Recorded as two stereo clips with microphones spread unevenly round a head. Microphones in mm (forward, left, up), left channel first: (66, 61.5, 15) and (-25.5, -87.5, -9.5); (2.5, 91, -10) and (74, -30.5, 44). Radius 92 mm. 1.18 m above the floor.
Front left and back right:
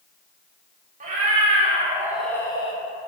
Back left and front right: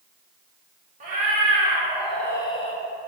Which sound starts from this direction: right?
A cat meowing, at 1.0 s.